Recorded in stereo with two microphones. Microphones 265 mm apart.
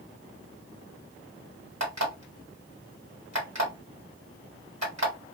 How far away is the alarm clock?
About 1.5 m.